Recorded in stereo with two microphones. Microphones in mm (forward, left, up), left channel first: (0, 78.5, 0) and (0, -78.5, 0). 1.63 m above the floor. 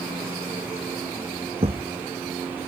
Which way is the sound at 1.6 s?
40° right (ahead or behind).